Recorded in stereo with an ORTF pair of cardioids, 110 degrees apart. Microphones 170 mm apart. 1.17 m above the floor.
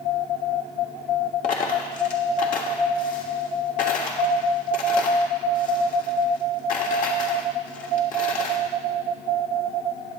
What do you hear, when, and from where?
1.4 s a dropped coin: 55° left, 1.6 m